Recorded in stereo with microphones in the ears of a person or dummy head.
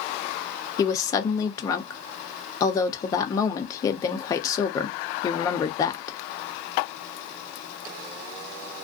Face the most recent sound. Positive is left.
turn(degrees=25)  # may be behind; listen again after turning